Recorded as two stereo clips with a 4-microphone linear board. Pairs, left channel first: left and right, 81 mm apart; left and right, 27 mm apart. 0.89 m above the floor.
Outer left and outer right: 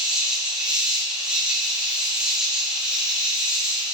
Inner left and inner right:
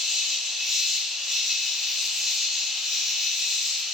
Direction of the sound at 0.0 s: 10° right (ahead or behind).